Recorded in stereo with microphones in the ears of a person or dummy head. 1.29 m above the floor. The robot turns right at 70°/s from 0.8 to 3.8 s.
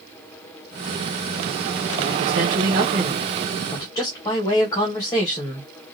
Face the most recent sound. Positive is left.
turn(degrees=25)